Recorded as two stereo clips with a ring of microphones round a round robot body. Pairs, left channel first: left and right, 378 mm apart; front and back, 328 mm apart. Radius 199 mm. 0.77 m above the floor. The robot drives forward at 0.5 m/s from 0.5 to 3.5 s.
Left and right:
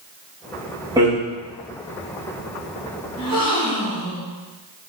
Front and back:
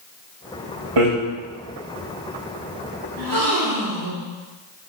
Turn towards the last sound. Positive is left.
turn(degrees=170)